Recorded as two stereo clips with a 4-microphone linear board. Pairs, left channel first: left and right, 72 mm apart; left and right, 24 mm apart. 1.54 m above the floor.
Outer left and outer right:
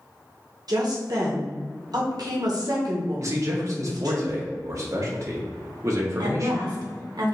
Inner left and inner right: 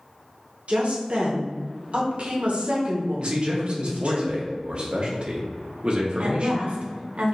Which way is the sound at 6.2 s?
80° right.